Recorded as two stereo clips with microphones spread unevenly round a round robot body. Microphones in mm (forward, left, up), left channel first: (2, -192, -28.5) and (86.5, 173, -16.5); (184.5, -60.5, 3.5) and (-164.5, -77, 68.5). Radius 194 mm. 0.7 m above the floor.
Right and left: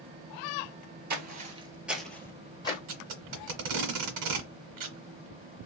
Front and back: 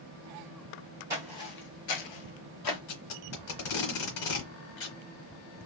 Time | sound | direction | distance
1.1 | footsteps | 120° left | 0.8 m
2.9 | tape being pulled | 45° left | 0.9 m